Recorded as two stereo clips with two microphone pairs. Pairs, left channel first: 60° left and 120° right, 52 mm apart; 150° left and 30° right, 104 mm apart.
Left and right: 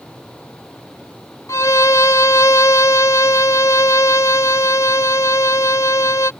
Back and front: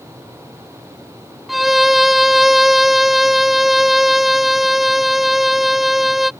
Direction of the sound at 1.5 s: 60° left.